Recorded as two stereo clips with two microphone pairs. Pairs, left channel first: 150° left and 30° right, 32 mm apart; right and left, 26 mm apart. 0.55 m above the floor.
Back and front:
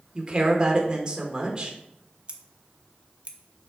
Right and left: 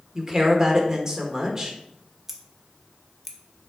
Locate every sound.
0.1 s a woman speaking: 30° left, 1.8 m
2.3 s scissors: 15° left, 1.3 m